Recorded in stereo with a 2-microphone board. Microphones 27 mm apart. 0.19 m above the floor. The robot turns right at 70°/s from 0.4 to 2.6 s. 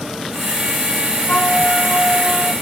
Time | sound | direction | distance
1.3 | a flute | 110° left | ?